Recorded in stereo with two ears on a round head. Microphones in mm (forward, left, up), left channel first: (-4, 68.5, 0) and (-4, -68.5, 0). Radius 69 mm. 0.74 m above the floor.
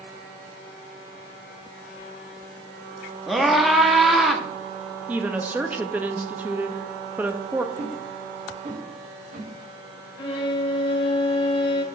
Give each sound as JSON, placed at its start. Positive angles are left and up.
{"t": 3.3, "sound": "a scream", "side_deg": 0, "distance_m": 1.0}
{"t": 5.1, "sound": "a woman speaking", "side_deg": -10, "distance_m": 0.5}
{"t": 7.8, "sound": "a whoosh", "side_deg": -55, "distance_m": 4.0}
{"t": 10.2, "sound": "a violin", "side_deg": 35, "distance_m": 1.1}